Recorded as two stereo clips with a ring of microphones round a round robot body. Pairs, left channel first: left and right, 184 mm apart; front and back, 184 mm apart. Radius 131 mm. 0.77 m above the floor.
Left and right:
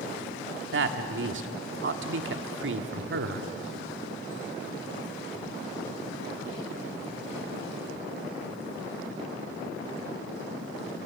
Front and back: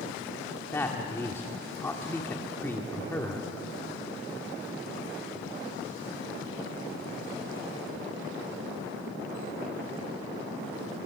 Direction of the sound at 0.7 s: 80° right.